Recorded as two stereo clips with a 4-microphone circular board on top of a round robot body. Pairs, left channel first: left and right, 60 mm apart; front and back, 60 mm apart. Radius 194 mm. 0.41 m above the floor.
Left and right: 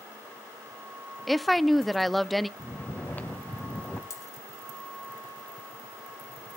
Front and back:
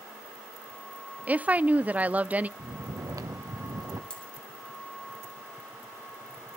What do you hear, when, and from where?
1.3 s a woman speaking: straight behind, 0.8 m
2.6 s snoring: 155° left, 1.0 m
4.1 s a dropped coin: 70° left, 4 m